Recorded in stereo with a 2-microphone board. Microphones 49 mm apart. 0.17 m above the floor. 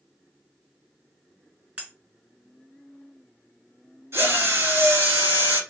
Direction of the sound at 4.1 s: 60° right (ahead or behind).